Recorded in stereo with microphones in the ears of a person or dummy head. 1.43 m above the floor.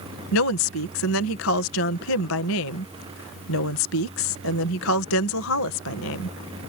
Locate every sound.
0.3 s a woman speaking: 70° left (ahead or behind)